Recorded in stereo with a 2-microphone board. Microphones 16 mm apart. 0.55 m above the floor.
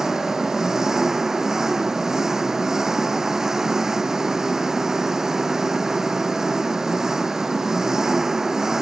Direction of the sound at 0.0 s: 25° right (ahead or behind).